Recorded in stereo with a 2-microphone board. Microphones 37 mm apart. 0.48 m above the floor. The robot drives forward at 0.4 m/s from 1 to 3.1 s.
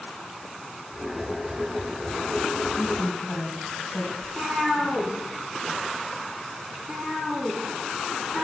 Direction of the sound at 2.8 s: 15° left (ahead or behind).